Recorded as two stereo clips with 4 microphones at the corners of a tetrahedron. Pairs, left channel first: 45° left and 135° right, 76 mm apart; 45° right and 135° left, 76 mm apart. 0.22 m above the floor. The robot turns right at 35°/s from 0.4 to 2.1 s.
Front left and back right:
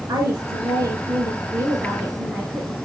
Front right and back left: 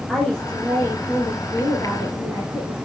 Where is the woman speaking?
120° right, 3.5 m; by 2.8 s 60° right, 3.5 m.